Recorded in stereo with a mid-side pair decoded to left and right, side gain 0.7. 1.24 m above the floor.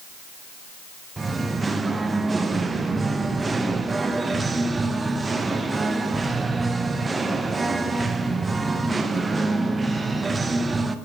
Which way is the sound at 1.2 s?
15° right.